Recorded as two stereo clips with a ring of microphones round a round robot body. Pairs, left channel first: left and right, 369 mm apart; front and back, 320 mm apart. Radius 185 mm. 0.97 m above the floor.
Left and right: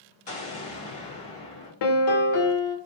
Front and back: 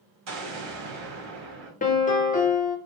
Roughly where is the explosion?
Behind.